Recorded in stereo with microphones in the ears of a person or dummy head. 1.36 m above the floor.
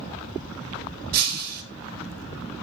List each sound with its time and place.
1.1 s breaking glass: 55° right (ahead or behind), 1.0 m